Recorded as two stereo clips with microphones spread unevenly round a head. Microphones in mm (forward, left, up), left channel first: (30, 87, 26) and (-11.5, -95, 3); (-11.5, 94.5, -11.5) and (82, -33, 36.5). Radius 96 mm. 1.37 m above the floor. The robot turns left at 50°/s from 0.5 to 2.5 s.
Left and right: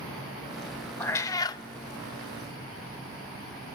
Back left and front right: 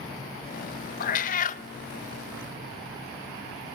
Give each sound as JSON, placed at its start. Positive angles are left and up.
{"t": 1.0, "sound": "a cat meowing", "azimuth_deg": 130, "distance_m": 0.6}